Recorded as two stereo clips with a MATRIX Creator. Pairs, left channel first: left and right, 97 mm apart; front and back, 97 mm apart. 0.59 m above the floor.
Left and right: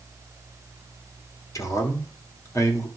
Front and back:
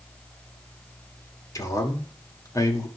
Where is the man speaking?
45° left, 1.9 m.